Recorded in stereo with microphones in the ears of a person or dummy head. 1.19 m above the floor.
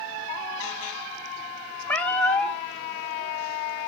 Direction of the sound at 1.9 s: 10° left (ahead or behind).